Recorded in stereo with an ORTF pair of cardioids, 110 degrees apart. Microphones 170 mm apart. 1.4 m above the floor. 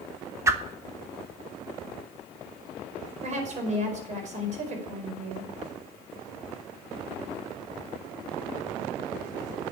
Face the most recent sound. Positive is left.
turn(degrees=-45)